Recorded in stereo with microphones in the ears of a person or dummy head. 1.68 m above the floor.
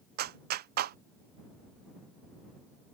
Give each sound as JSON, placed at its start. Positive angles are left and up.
{"t": 0.2, "sound": "a clap", "side_deg": -50}